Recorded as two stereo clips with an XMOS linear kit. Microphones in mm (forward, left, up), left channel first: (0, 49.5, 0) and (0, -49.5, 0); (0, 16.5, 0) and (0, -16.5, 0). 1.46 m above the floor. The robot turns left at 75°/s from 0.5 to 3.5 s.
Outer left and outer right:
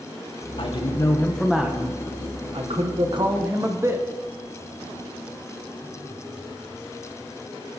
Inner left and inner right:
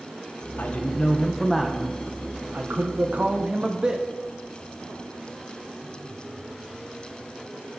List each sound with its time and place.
0.6 s a man speaking: 65° left, 1.5 m; by 4.0 s 150° right, 1.5 m